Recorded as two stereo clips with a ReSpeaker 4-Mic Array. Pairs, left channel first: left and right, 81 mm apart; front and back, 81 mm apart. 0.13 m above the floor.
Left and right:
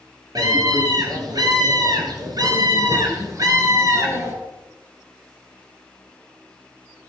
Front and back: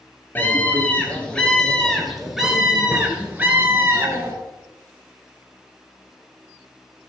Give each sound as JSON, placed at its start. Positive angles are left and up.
{"t": 0.3, "sound": "a scream", "azimuth_deg": -65, "distance_m": 2.5}